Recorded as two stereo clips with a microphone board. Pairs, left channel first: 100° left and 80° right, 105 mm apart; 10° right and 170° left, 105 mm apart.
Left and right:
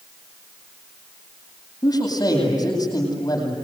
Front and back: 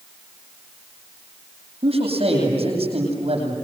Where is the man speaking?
150° left, 9 m.